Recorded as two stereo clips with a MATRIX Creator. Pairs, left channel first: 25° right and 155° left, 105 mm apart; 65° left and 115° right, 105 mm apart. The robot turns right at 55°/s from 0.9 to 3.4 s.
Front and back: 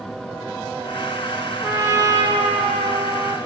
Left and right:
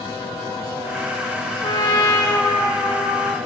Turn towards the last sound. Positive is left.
turn(degrees=-170)